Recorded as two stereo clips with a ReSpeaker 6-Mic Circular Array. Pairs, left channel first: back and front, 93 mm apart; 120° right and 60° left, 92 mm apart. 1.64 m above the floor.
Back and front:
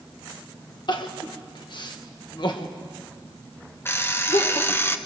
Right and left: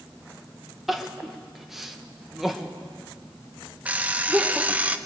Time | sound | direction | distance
0.9 | crying | 145° left | 1.6 m
3.9 | an alarm clock | 125° left | 1.0 m